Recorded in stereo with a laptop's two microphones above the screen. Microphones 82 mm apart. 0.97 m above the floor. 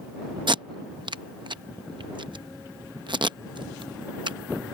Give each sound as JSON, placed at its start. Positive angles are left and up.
{"t": 0.5, "sound": "tape being pulled", "side_deg": -70}